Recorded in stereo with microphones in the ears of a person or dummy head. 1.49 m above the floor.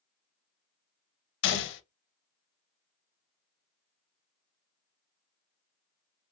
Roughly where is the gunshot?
Left.